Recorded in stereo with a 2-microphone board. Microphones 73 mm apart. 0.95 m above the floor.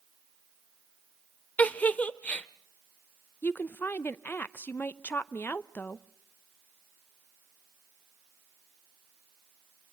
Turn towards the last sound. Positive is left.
turn(degrees=30)  # may be behind; listen again after turning